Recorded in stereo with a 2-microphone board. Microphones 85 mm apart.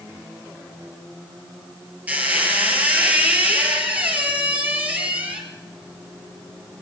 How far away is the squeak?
About 3.5 m.